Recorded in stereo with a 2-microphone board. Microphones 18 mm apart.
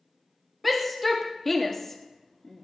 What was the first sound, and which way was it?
A shout, 5° right (ahead or behind).